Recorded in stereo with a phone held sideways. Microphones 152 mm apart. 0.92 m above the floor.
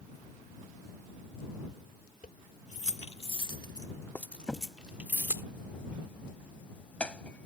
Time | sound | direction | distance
2.2 | keys jangling | 65° left (ahead or behind) | ?
4.5 | a crack | 10° left (ahead or behind) | ?